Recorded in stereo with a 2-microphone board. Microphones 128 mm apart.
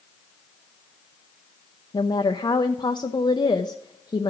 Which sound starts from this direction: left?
A woman speaking, at 1.9 s.